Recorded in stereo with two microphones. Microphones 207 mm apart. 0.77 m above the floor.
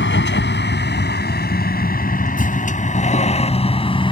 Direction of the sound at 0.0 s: 65° left (ahead or behind).